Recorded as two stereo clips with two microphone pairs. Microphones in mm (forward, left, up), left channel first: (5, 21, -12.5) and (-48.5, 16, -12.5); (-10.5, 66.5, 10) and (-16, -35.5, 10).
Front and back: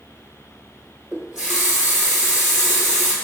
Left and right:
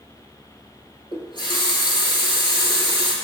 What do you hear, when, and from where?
1.1 s a running tap: 105° left, 1.2 m